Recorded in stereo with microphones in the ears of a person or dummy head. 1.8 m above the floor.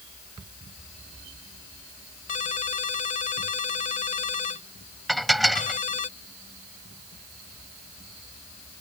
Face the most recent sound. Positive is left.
turn(degrees=0)  # may be behind; listen again after turning